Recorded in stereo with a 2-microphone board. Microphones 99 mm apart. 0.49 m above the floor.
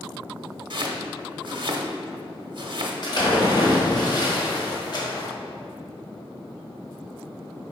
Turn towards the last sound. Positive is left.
turn(degrees=45)  # may be behind; listen again after turning